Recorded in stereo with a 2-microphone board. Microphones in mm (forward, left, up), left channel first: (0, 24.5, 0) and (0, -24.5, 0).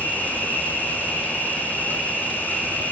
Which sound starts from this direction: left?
An insect, at 0.0 s.